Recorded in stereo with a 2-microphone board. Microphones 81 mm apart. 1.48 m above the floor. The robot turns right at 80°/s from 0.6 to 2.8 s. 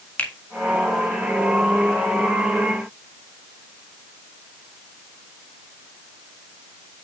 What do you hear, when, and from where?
0.2 s a finger snap: 20° left (ahead or behind), 1.6 m